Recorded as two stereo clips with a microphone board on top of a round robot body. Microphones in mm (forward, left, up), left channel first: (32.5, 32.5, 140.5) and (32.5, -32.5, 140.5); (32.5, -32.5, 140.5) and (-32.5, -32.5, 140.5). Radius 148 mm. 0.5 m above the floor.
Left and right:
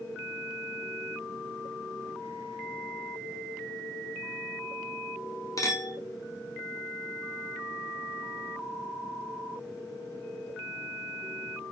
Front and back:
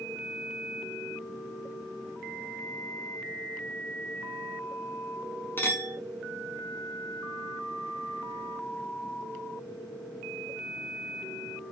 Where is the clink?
55° left, 1.3 m.